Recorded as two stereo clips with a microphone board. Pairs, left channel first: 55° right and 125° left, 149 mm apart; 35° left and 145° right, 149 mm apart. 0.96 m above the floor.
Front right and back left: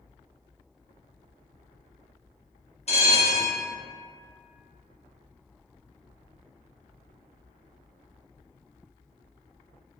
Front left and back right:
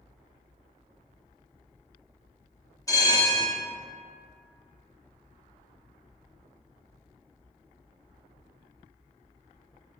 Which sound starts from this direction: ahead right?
A bell, at 2.9 s.